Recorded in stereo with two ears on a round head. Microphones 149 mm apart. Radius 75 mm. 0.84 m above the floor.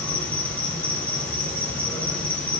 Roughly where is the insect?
Centre.